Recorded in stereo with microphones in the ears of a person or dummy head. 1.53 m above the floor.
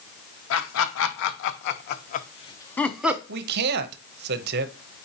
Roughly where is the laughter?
Left.